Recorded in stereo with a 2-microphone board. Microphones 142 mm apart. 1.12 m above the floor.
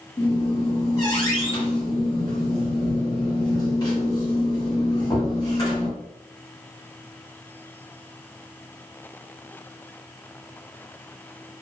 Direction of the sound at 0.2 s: 30° left (ahead or behind).